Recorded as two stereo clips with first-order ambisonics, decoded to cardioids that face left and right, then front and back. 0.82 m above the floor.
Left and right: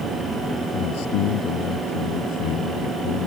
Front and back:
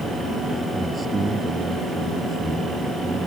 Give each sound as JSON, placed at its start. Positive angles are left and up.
{"t": 0.7, "sound": "a man speaking", "azimuth_deg": 105}